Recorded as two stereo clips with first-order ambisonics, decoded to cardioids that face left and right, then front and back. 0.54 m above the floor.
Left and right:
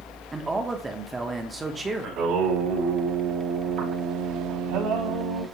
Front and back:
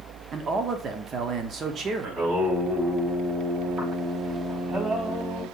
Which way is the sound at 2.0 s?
110° right.